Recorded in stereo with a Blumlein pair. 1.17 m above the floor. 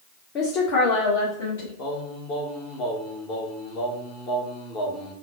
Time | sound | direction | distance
0.3 | a woman speaking | 30° left | 0.7 m
1.8 | singing | 35° left | 0.9 m